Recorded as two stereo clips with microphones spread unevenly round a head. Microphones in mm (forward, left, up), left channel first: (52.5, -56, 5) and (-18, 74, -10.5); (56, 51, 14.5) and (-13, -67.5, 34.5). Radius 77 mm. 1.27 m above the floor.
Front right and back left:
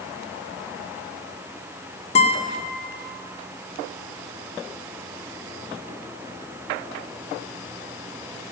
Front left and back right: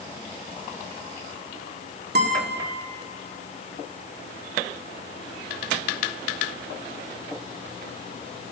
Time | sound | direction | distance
2.1 | a guitar | 115° right | 1.7 m